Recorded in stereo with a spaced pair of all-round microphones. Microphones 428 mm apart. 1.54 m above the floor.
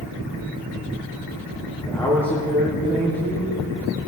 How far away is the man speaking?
About 3 m.